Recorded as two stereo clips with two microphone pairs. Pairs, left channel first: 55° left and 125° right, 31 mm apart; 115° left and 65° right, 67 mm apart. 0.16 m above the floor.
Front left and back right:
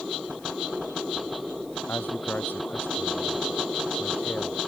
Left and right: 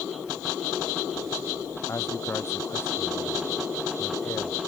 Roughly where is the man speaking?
Ahead left.